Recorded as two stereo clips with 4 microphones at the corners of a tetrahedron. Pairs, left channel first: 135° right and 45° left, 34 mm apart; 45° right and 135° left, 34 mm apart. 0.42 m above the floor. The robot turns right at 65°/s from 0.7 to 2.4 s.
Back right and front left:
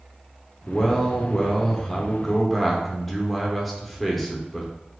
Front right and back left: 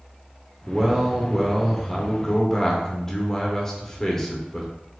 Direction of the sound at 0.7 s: 170° right.